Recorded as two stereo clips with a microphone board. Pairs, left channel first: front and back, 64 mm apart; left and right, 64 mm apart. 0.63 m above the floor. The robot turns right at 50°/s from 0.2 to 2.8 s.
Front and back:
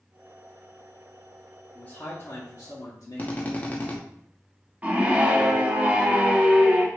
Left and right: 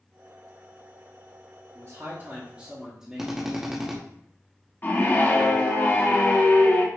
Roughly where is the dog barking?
I don't hear a dog barking.